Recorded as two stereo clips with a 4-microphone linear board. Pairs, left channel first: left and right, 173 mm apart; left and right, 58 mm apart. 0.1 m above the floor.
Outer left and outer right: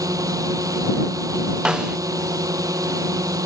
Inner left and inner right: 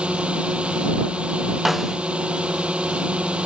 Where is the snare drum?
5° right (ahead or behind).